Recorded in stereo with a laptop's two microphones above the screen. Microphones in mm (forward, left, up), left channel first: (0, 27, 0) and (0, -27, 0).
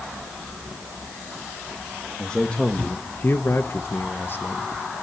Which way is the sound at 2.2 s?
15° left (ahead or behind).